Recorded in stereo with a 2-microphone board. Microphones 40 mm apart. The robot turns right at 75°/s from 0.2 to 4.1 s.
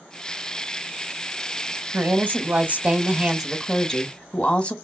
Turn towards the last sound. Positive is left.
turn(degrees=40)